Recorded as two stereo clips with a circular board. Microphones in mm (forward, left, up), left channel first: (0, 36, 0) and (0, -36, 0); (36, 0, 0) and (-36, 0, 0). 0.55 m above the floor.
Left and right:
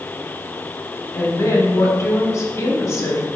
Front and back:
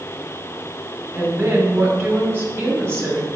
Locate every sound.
1.1 s a woman speaking: 125° left, 1.3 m